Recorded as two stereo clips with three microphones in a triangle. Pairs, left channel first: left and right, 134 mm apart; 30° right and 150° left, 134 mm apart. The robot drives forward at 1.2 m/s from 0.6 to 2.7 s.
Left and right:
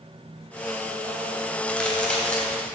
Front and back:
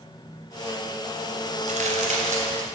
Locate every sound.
1.7 s a crack: 170° left, 2.5 m; by 2.6 s 175° left, 4 m